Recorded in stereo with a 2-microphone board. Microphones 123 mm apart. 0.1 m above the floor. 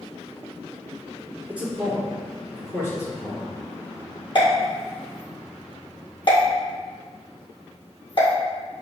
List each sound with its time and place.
1.5 s a man speaking: 10° right (ahead or behind), 1.6 m; by 3.5 s 30° left (ahead or behind), 2 m
4.3 s a pop: 45° left (ahead or behind), 1.8 m